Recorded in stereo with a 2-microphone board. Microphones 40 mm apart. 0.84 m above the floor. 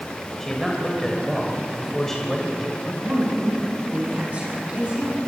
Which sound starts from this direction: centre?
A man speaking, at 0.4 s.